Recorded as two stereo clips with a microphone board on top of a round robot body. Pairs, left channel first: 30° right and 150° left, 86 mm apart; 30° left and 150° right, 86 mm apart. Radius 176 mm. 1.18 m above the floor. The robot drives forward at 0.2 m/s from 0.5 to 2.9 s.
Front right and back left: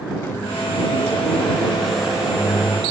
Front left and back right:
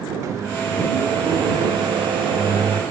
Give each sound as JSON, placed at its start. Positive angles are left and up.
{"t": 0.2, "sound": "a microwave", "azimuth_deg": -95, "distance_m": 0.6}